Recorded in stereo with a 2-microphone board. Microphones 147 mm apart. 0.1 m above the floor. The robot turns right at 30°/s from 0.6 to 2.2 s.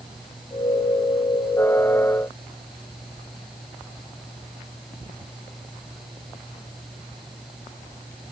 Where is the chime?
I don't hear a chime.